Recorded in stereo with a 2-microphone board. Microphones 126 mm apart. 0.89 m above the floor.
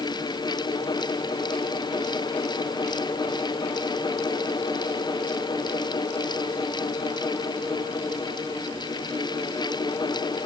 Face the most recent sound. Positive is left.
No sound to turn to.